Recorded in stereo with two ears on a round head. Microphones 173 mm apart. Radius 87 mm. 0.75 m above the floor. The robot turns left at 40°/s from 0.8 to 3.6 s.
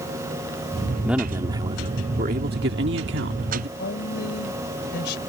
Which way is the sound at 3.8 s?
65° left (ahead or behind).